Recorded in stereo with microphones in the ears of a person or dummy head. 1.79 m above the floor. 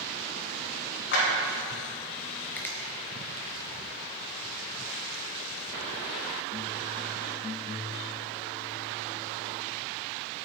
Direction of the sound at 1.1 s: 60° left (ahead or behind).